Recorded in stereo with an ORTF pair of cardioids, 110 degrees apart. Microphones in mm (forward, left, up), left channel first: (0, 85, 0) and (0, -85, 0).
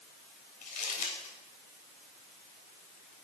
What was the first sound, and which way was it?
Crumpling, 55° left.